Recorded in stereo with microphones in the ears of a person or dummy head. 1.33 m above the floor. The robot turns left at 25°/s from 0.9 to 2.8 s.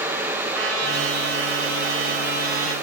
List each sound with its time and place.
0.5 s a trumpet: 90° right, 3 m; by 2.7 s 140° right, 3 m